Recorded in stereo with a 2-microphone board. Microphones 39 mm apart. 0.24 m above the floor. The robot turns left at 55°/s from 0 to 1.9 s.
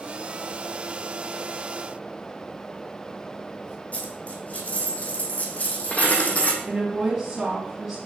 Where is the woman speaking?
10° right (ahead or behind), 2.5 m.